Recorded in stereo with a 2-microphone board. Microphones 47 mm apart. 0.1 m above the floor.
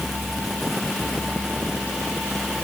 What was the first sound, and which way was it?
Only background noise.